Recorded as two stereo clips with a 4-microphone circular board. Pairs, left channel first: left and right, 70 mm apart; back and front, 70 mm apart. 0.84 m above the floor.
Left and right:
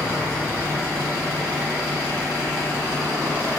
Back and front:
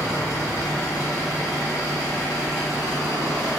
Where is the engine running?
155° left, 1.8 m.